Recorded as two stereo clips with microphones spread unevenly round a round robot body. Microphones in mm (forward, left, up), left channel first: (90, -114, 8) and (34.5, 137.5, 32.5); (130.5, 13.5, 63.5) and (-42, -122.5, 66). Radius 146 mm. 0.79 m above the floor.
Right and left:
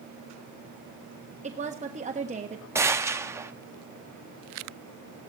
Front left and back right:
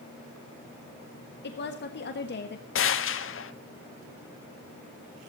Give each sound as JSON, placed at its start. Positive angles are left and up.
{"t": 1.4, "sound": "a woman speaking", "azimuth_deg": 40, "distance_m": 1.4}
{"t": 2.8, "sound": "a gunshot", "azimuth_deg": 20, "distance_m": 1.1}